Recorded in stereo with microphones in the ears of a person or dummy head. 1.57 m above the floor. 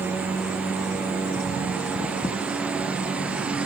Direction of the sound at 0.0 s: 5° right (ahead or behind).